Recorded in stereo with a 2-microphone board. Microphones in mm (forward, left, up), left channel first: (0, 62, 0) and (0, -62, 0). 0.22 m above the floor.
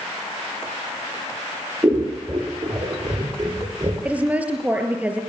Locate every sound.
1.8 s scissors: 30° right (ahead or behind), 5.5 m
4.0 s a woman speaking: 10° right (ahead or behind), 4.5 m